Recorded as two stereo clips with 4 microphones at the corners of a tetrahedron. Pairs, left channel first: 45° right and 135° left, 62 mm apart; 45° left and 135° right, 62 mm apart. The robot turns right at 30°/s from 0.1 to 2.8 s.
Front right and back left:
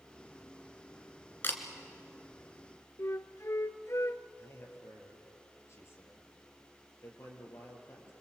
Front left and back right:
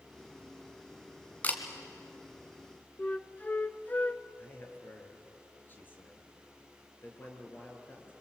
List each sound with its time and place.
1.4 s a camera shutter: 10° right, 2 m; by 1.6 s 5° right, 2 m
3.0 s a flute: 15° right, 0.6 m
4.4 s a man speaking: 10° right, 4 m